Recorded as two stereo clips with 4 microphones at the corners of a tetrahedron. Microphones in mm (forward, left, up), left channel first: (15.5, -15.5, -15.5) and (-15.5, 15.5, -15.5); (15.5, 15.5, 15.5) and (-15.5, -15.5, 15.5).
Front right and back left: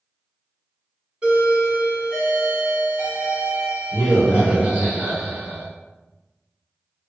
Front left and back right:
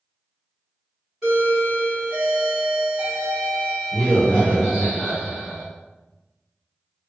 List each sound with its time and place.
1.2 s a doorbell: 155° left, 2.0 m